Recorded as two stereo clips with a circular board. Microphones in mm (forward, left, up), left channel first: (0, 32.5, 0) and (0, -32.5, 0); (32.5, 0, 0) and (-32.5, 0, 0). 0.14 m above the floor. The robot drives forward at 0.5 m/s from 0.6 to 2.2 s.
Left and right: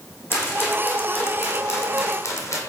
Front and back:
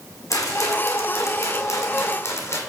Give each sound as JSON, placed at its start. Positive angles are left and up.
{"t": 0.3, "sound": "a rattle", "azimuth_deg": 40, "distance_m": 3.0}